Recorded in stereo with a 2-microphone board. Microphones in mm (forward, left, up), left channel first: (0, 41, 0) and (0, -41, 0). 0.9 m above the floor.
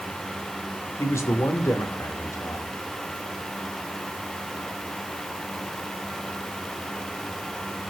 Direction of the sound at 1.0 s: 35° left (ahead or behind).